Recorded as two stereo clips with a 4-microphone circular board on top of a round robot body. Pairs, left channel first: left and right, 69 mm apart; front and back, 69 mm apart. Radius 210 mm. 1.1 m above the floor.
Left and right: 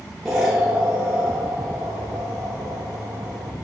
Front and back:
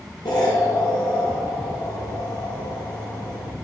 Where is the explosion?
Straight ahead, 1.2 m.